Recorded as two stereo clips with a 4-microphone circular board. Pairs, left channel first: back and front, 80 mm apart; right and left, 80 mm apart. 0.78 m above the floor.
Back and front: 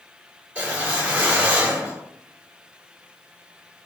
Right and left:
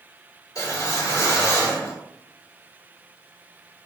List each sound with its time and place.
0.6 s a whoosh: 65° right, 1.8 m